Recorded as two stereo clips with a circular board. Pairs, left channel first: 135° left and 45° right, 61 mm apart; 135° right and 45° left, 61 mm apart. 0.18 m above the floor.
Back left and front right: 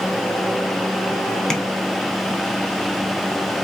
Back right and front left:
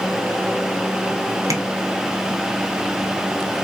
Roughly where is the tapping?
Ahead left.